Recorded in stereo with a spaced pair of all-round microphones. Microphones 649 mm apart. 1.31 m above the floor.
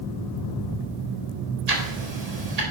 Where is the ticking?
75° right (ahead or behind), 1.6 m.